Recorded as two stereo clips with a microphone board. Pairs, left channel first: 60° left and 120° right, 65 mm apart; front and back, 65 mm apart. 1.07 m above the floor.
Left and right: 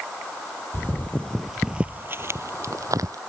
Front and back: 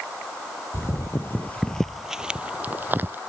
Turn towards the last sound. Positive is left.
turn(degrees=-125)